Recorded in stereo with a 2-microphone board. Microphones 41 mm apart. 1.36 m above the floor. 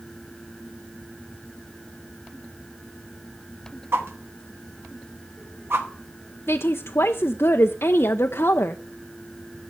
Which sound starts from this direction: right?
A whoosh, at 3.9 s.